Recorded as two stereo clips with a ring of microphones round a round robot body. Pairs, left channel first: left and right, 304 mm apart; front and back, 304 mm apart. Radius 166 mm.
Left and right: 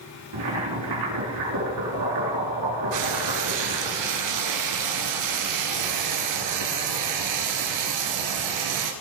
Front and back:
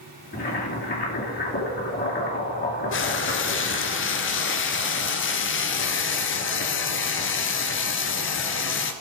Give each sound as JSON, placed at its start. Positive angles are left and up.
{"t": 0.3, "sound": "boiling", "azimuth_deg": -55, "distance_m": 4.0}
{"t": 2.9, "sound": "frying", "azimuth_deg": -50, "distance_m": 1.4}